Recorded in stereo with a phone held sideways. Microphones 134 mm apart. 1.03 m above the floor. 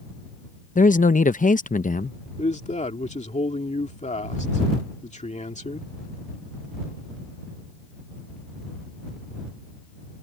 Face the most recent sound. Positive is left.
turn(degrees=60)  # may be behind; listen again after turning